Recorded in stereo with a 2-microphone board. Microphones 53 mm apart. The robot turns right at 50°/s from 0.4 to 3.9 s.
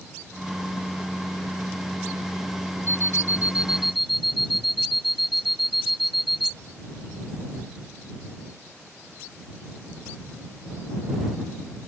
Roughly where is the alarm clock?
Ahead right.